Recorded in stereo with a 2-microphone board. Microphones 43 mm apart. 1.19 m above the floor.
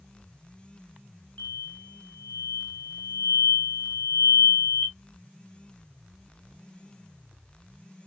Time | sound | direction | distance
1.4 | an explosion | 35° left (ahead or behind) | 1.8 m